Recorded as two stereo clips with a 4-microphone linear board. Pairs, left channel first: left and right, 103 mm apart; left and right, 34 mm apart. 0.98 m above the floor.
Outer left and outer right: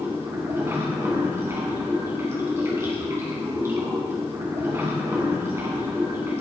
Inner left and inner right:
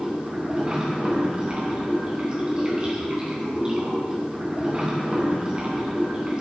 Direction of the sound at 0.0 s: 25° right (ahead or behind).